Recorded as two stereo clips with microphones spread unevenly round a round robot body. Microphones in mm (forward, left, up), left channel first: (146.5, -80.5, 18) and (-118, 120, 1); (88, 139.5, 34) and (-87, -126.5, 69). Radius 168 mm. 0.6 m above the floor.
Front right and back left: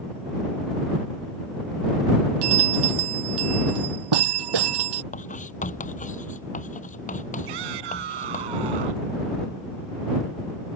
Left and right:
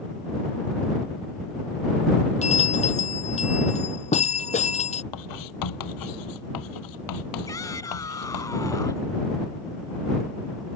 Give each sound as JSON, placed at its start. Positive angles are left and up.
{"t": 2.4, "sound": "a bell", "azimuth_deg": 125}
{"t": 5.1, "sound": "writing", "azimuth_deg": 30}
{"t": 7.5, "sound": "a shout", "azimuth_deg": 135}